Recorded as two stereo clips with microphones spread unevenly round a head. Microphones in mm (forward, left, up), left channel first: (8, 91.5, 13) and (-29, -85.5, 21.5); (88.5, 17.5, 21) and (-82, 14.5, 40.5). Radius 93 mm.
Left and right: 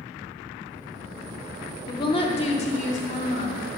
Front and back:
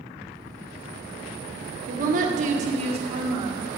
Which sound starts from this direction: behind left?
A woman speaking, at 1.9 s.